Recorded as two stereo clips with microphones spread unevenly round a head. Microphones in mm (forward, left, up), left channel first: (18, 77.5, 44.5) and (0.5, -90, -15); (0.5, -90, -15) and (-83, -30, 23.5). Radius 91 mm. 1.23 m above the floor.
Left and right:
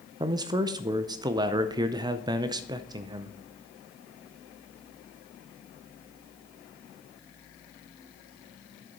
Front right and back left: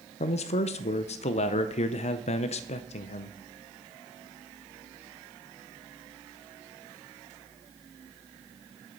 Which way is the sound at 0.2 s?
30° right.